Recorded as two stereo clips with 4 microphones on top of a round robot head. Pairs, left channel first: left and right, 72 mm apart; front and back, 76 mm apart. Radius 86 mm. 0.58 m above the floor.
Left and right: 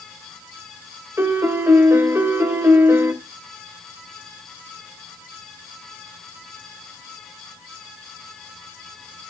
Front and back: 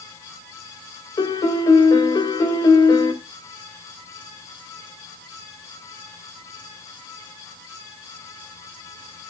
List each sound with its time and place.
1.2 s a piano: 35° right, 2 m